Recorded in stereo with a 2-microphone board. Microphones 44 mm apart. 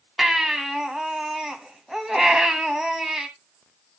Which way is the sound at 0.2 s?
10° right (ahead or behind).